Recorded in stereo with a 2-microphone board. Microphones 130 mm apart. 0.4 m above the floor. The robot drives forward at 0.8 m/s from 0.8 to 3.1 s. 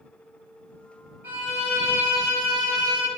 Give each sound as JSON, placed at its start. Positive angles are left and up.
{"t": 1.2, "sound": "a violin", "side_deg": -15, "distance_m": 1.8}